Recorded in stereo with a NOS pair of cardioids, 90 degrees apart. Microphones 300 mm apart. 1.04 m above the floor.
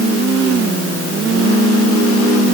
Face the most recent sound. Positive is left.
No sound to turn to.